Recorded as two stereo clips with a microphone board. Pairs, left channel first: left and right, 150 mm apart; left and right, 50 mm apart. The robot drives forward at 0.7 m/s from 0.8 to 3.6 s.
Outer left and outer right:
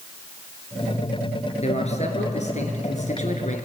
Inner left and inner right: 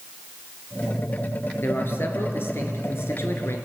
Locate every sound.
1.6 s a man speaking: 50° left (ahead or behind), 3.5 m; by 3.6 s 60° left (ahead or behind), 3 m